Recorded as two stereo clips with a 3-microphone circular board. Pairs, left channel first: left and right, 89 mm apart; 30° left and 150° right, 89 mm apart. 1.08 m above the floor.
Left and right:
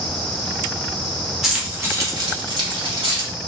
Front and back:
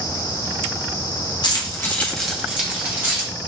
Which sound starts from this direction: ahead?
Keys jangling, at 1.4 s.